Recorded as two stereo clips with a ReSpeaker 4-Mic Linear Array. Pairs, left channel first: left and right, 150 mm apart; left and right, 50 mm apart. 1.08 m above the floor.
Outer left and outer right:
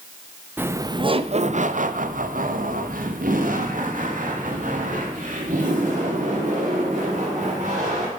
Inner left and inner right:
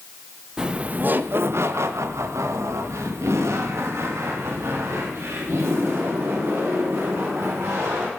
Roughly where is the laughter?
Centre.